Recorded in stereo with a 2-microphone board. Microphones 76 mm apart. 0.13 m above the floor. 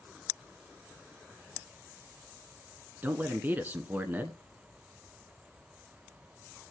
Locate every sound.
3.0 s a man speaking: 25° right (ahead or behind), 1.1 m